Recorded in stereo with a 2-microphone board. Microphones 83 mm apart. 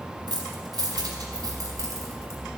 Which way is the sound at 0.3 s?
65° right (ahead or behind).